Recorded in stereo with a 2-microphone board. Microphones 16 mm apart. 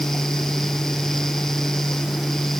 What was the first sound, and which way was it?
Only background noise.